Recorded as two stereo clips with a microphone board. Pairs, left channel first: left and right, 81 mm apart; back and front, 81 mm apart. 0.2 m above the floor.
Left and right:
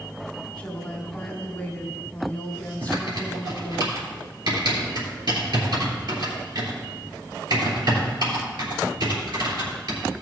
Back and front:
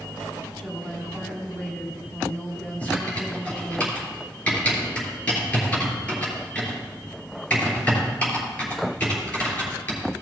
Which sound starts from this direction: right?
Typing on a keyboard, at 2.8 s.